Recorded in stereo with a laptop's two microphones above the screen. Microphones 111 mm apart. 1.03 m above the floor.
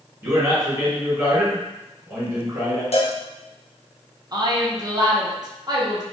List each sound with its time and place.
0.2 s a man speaking: 30° right (ahead or behind), 1.5 m
2.9 s a cowbell: 65° left (ahead or behind), 0.6 m
4.3 s a woman speaking: 35° right (ahead or behind), 0.5 m